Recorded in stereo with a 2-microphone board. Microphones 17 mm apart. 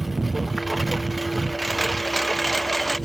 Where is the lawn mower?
10° right (ahead or behind); by 3.1 s 5° left (ahead or behind).